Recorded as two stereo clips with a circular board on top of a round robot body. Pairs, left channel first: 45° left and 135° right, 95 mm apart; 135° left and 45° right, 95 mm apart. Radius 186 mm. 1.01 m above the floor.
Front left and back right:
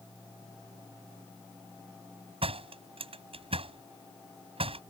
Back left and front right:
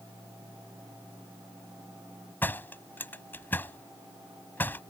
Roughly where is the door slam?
Behind right.